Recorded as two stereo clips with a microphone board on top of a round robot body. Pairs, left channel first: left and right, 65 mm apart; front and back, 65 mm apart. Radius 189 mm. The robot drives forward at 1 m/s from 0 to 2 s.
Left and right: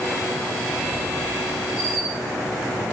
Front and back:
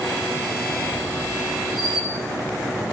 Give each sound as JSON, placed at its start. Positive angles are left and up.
{"t": 0.7, "sound": "a squeak", "azimuth_deg": 55, "distance_m": 0.7}